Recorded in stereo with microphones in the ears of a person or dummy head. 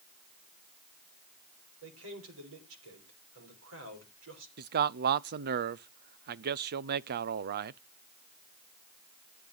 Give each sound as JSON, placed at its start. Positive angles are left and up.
{"t": 1.8, "sound": "a man speaking", "side_deg": -80, "distance_m": 5.0}
{"t": 4.6, "sound": "a man speaking", "side_deg": -50, "distance_m": 0.6}